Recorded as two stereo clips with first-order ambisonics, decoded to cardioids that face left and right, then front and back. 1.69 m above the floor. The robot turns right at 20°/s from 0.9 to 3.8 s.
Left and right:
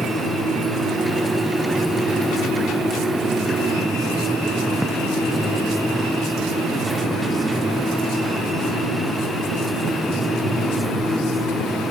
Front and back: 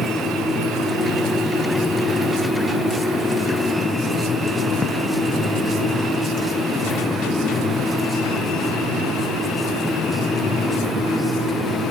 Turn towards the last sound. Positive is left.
No sound to turn to.